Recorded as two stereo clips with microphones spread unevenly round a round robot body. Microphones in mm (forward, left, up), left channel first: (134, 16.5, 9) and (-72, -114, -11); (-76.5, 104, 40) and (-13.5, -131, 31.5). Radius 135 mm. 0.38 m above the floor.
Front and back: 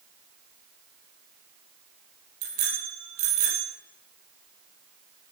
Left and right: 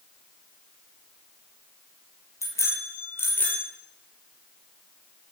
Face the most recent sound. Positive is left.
turn(degrees=-170)